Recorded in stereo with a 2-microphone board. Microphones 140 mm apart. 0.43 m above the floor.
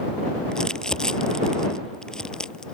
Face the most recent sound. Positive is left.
turn(degrees=5)  # may be behind; listen again after turning